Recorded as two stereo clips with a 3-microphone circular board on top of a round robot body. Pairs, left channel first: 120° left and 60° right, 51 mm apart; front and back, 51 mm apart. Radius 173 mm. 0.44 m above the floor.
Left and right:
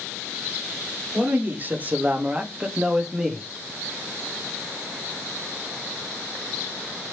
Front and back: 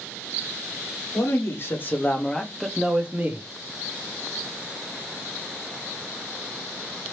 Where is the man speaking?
10° right, 1.4 m; by 3.5 s 150° right, 1.2 m.